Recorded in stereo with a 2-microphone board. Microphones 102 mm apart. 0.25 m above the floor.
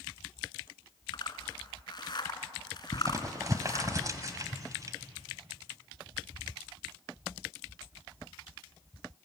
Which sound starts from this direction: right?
Crumpling, at 2.9 s.